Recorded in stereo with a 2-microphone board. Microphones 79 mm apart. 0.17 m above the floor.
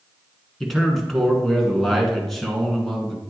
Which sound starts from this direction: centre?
A man speaking, at 0.6 s.